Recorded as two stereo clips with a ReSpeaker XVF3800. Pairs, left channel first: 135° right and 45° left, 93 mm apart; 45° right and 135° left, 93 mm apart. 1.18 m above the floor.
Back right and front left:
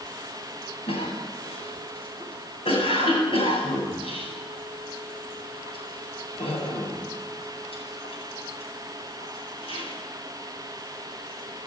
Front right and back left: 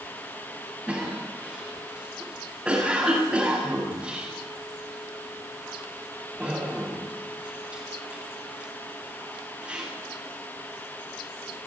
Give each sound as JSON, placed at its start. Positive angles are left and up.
{"t": 0.9, "sound": "a cough", "azimuth_deg": -145, "distance_m": 9.0}